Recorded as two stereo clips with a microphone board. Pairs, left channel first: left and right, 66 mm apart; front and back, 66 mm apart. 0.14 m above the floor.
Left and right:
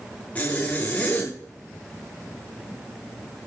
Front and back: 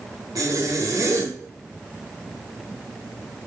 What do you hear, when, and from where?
0.3 s a zipper: 155° left, 9.5 m